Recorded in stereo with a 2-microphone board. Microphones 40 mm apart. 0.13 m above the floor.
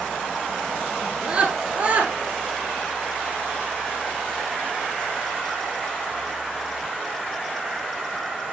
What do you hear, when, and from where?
1.0 s a scream: 25° right (ahead or behind), 1.8 m; by 2.1 s 45° right (ahead or behind), 2 m